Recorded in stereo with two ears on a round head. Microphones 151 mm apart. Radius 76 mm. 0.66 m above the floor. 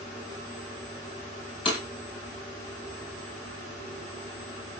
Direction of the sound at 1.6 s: 35° left (ahead or behind).